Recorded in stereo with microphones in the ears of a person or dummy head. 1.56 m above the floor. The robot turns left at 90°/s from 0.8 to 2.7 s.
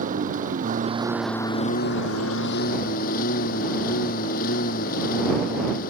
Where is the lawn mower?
150° right; by 5.9 s 40° left.